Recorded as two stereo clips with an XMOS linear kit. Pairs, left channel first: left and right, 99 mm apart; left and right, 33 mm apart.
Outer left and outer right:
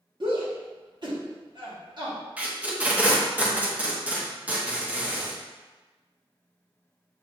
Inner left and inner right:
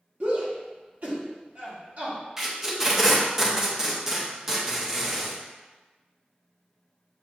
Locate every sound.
0.2 s a shout: 50° right (ahead or behind), 1.3 m
2.4 s tape being pulled: 15° right (ahead or behind), 0.7 m